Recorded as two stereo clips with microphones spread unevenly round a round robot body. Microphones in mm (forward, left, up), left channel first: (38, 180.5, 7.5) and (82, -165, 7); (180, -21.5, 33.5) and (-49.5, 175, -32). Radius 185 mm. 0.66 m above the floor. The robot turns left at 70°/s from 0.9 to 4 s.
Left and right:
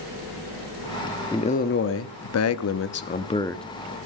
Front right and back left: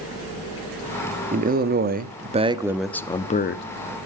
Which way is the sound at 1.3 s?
170° left.